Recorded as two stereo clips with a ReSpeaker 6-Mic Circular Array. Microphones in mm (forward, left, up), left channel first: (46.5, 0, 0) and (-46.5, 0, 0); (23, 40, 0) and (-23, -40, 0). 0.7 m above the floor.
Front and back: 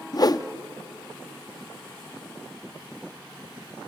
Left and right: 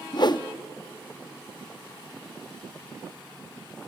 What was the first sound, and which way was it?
A whoosh, 35° left.